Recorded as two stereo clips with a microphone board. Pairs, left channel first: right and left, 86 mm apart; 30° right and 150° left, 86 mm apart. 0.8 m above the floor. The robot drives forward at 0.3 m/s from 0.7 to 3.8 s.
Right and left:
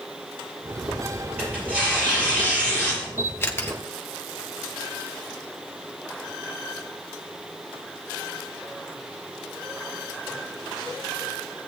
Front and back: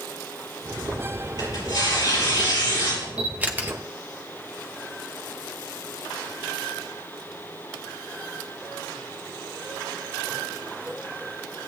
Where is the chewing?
I don't hear chewing.